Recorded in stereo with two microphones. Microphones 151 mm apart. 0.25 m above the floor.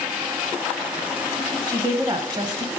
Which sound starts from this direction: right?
A woman speaking, at 1.7 s.